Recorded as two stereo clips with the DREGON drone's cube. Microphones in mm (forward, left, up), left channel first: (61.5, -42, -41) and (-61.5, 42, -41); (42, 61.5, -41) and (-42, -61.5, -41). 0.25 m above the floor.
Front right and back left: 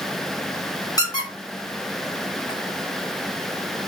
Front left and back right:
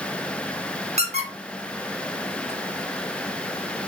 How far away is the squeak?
About 1.2 m.